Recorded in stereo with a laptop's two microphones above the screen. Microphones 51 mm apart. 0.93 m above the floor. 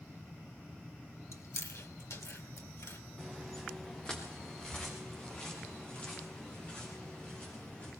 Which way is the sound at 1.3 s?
70° left (ahead or behind).